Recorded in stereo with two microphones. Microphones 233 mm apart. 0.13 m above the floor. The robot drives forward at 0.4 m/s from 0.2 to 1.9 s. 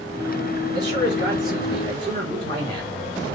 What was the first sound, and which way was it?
A man speaking, 50° right (ahead or behind).